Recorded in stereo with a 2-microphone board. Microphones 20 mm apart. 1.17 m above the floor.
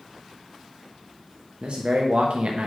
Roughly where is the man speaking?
Right.